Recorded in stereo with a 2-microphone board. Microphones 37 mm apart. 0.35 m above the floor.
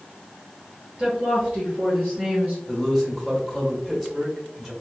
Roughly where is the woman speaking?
Right.